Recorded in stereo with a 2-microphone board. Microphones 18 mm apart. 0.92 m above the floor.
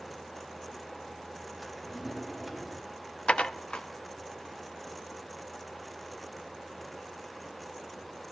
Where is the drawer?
10° right (ahead or behind), 4 m.